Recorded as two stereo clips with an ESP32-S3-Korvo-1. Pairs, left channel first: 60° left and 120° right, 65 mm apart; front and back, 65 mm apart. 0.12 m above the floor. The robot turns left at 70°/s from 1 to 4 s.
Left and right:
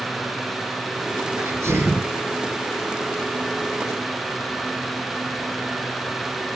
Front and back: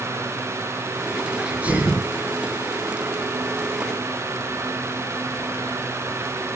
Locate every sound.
1.4 s a sneeze: 100° right, 1.7 m; by 2.1 s 155° right, 1.7 m